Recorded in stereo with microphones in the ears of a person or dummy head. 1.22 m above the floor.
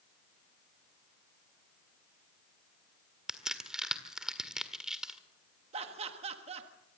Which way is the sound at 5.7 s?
40° right (ahead or behind).